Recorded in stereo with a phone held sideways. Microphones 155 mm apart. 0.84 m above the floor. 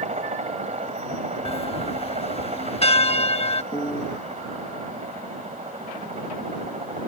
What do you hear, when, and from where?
0.0 s a helicopter: 45° right (ahead or behind)
1.4 s a bell: 40° left (ahead or behind)
3.7 s a piano: 30° left (ahead or behind)